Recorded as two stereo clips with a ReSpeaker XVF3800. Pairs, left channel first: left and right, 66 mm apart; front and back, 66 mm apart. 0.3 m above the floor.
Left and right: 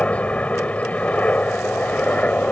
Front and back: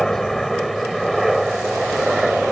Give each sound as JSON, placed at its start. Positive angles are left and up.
{"t": 0.0, "sound": "a helicopter", "azimuth_deg": 75}